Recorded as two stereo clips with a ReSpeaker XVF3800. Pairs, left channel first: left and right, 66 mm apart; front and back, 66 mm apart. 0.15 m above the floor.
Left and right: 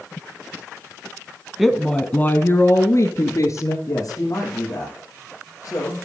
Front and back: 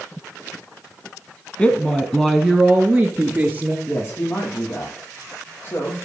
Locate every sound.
1.6 s a woman speaking: 10° right, 1.0 m; by 3.8 s 110° left, 2 m
3.9 s a man speaking: 55° left, 5 m